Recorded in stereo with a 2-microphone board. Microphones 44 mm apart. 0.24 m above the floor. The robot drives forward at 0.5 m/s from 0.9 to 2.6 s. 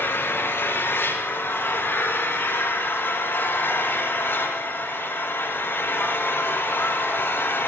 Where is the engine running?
65° left (ahead or behind), 5.5 m; by 7.7 s 55° left (ahead or behind), 6 m.